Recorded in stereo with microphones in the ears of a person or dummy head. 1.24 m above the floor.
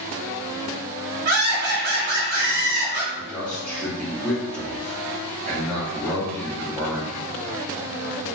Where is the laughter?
50° right (ahead or behind), 0.9 m.